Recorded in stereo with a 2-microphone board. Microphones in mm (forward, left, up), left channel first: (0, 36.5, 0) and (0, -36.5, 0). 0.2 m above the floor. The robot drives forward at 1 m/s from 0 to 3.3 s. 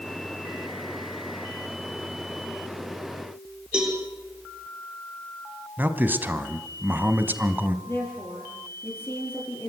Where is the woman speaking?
30° left (ahead or behind), 6 m.